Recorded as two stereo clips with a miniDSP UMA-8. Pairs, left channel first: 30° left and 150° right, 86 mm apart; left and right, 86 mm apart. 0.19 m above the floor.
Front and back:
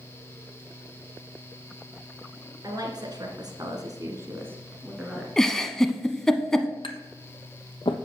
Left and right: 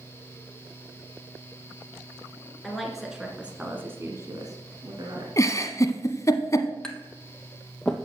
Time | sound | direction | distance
2.6 | a woman speaking | 175° left | 2.5 m
5.4 | a giggle | 110° left | 0.9 m
6.8 | tapping | 5° left | 1.0 m